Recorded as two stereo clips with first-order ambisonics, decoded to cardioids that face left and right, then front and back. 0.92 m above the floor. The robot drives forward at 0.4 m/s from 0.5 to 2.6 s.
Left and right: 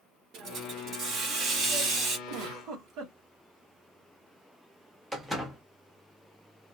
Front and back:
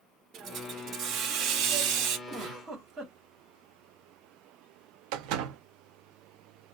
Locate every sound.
0.3 s a hiss: 130° right, 1.2 m; by 2.2 s 150° right, 1.7 m
2.3 s a giggle: 120° right, 2 m; by 3.1 s 125° right, 2.5 m
5.1 s a door slam: 175° right, 0.9 m